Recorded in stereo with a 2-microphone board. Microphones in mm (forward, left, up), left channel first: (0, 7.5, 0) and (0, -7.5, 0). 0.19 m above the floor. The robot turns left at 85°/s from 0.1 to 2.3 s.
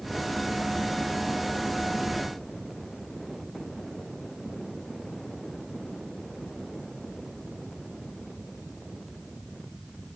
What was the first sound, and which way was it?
Only background noise.